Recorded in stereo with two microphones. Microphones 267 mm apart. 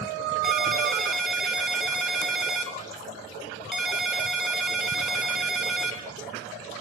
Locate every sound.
0.4 s a ringtone: centre (ahead or behind), 0.8 m